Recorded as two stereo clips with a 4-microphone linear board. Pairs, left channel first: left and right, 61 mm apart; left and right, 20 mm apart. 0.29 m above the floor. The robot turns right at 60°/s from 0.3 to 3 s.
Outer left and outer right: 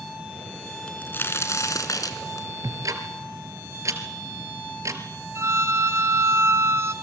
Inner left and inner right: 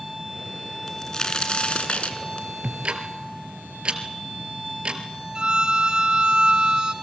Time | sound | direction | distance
0.9 | a crack | 20° left | 3.5 m
2.6 | ticking | 75° right (ahead or behind) | 3 m
5.3 | a violin | 50° right (ahead or behind) | 1.8 m